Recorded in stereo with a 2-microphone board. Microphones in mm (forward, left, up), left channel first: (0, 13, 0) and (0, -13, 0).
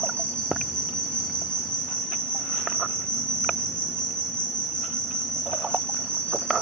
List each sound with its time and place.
0.0 s an insect: 50° left (ahead or behind), 3 m